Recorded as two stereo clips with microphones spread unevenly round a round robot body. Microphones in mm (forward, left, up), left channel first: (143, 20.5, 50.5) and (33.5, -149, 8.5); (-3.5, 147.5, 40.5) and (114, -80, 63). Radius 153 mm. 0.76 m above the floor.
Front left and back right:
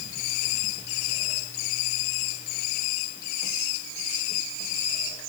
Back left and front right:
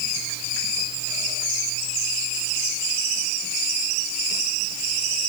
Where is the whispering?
I don't hear whispering.